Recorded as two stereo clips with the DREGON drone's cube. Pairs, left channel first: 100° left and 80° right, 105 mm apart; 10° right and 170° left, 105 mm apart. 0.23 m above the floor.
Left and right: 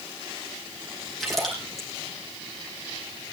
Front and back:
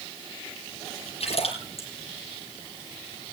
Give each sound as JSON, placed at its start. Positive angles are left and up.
{"t": 1.2, "sound": "a splash", "azimuth_deg": 10, "distance_m": 8.5}